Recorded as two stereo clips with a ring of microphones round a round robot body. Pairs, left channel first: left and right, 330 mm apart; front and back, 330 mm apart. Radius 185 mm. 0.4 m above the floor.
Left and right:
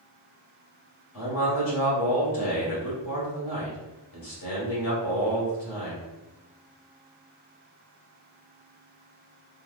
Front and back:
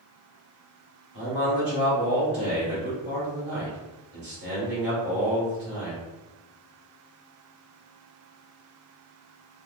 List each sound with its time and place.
1.1 s a man speaking: 125° left, 2.0 m